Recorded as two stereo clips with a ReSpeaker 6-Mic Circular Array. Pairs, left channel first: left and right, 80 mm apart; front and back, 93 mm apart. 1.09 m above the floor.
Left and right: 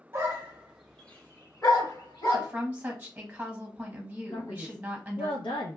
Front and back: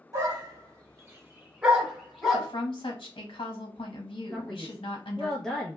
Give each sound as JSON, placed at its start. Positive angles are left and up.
{"t": 0.1, "sound": "a dog barking", "azimuth_deg": -135, "distance_m": 1.1}
{"t": 2.3, "sound": "a woman speaking", "azimuth_deg": -20, "distance_m": 1.0}
{"t": 4.3, "sound": "a man speaking", "azimuth_deg": 85, "distance_m": 0.6}